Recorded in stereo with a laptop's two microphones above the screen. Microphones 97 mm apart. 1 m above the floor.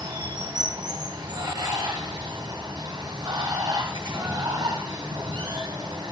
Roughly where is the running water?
Right.